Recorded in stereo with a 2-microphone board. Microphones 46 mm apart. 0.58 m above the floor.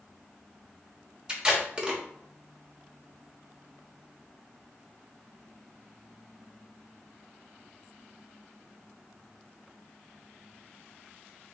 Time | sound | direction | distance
1.3 | tape being pulled | 25° right (ahead or behind) | 1.1 m